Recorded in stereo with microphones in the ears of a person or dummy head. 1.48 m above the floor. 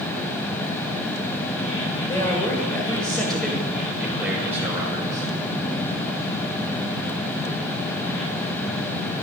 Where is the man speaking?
10° left (ahead or behind), 6.5 m; by 5.3 s 20° right (ahead or behind), 6 m.